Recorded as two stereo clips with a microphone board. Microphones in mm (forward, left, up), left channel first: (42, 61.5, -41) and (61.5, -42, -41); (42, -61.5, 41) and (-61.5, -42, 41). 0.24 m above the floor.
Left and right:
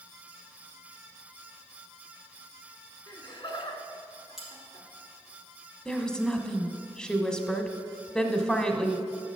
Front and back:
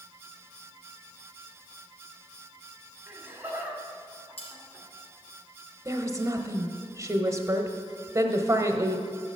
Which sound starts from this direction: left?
Laughter, at 3.1 s.